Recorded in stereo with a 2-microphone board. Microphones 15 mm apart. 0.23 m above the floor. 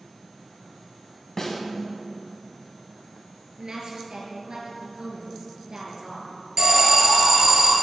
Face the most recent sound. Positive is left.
turn(degrees=-40)  # may be behind; listen again after turning